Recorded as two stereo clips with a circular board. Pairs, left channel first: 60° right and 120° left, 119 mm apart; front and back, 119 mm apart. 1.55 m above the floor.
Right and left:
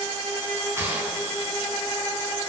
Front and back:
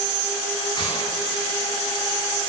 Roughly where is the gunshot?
Ahead left.